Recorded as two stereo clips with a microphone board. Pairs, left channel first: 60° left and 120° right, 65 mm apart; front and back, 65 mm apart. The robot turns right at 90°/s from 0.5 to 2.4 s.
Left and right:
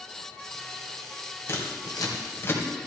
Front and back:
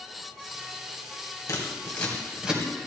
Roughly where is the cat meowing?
I don't hear a cat meowing.